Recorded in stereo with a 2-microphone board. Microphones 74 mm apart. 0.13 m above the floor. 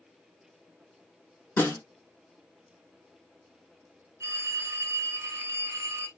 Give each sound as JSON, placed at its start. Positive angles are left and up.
{"t": 1.6, "sound": "a snare drum", "side_deg": 25, "distance_m": 0.8}
{"t": 4.2, "sound": "a phone ringing", "side_deg": -35, "distance_m": 0.8}